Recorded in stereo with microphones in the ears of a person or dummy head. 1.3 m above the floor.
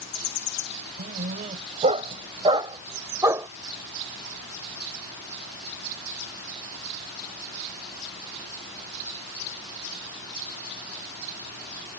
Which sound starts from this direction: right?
A dog barking, at 1.0 s.